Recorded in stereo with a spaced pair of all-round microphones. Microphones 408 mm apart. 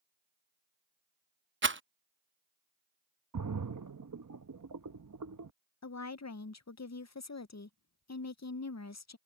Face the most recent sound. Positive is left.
turn(degrees=45)  # may be behind; listen again after turning